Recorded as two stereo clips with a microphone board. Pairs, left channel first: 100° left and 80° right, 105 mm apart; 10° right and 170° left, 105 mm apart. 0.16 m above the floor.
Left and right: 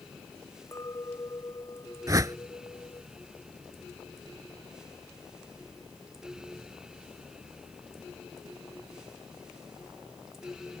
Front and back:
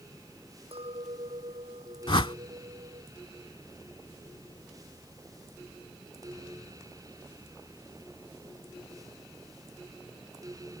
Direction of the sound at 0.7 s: 160° left.